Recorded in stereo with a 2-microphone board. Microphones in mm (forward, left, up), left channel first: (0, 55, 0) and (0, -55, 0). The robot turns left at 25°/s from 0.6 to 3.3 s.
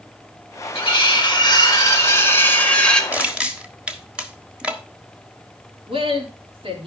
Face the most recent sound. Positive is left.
turn(degrees=-55)  # may be behind; listen again after turning